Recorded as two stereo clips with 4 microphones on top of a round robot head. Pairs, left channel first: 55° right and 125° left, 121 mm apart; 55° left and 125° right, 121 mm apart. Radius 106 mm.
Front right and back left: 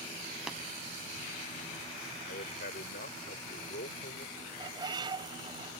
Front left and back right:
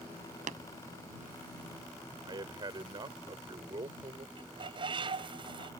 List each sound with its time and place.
0.5 s tapping: 150° right
2.2 s a man speaking: 65° right
4.4 s a bird: 175° right